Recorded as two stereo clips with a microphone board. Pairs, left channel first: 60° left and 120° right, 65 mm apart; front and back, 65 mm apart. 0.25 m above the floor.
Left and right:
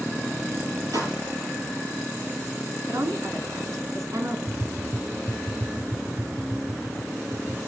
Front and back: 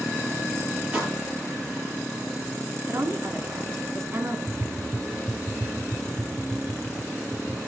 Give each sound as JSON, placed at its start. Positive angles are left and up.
{"t": 0.9, "sound": "a pop", "azimuth_deg": -110, "distance_m": 7.0}
{"t": 2.9, "sound": "a woman speaking", "azimuth_deg": -140, "distance_m": 3.0}
{"t": 4.5, "sound": "tapping", "azimuth_deg": -85, "distance_m": 1.5}